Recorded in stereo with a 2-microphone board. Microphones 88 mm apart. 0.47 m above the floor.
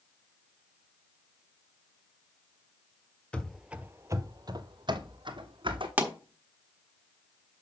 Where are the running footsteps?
15° left (ahead or behind), 0.5 m; by 5.9 s 70° right (ahead or behind), 1.5 m.